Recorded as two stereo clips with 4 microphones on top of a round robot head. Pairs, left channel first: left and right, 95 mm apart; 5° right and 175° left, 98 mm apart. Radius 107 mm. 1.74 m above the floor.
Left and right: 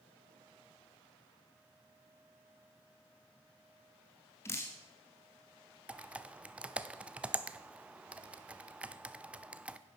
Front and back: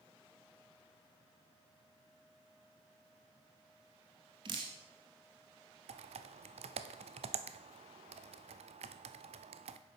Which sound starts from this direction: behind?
Typing on a keyboard, at 5.9 s.